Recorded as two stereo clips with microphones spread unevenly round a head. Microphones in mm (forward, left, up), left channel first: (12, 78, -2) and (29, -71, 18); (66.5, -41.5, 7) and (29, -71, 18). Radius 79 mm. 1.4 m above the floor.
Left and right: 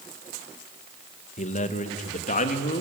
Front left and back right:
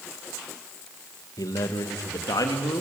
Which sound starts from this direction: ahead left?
A man speaking, at 1.4 s.